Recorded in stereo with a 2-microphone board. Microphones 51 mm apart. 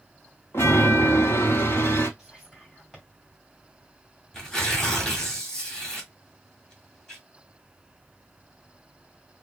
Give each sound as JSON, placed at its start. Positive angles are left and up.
{"t": 0.5, "sound": "a chime", "side_deg": 60, "distance_m": 1.2}
{"t": 2.2, "sound": "whispering", "side_deg": 0, "distance_m": 2.5}
{"t": 4.3, "sound": "tearing paper", "side_deg": 15, "distance_m": 1.3}